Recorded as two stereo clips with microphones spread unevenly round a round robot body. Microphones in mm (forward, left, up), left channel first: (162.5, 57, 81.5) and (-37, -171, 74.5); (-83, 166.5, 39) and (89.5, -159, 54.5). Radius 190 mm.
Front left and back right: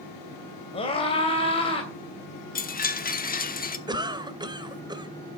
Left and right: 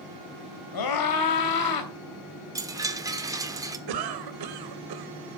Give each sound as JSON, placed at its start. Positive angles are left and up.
{"t": 0.7, "sound": "a scream", "azimuth_deg": 120, "distance_m": 3.0}
{"t": 2.5, "sound": "a chime", "azimuth_deg": 15, "distance_m": 1.3}
{"t": 3.9, "sound": "a cough", "azimuth_deg": -55, "distance_m": 1.8}